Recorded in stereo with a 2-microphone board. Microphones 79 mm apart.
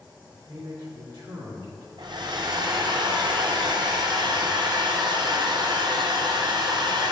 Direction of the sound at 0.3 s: 75° right (ahead or behind).